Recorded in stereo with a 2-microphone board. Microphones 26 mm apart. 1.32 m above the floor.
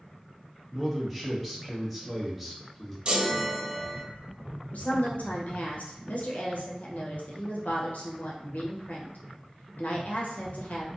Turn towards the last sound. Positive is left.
turn(degrees=70)  # may be behind; listen again after turning